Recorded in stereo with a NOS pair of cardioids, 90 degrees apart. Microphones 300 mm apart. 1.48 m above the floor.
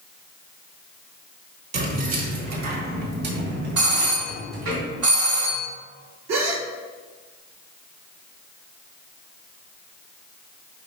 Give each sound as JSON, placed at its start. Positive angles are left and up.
{"t": 1.7, "sound": "keys jangling", "azimuth_deg": -60, "distance_m": 1.6}
{"t": 3.8, "sound": "a doorbell", "azimuth_deg": -55, "distance_m": 1.6}
{"t": 6.3, "sound": "a gasp", "azimuth_deg": -65, "distance_m": 1.0}